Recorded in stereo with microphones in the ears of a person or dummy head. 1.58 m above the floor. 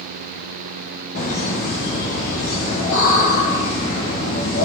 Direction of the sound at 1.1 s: 70° left (ahead or behind).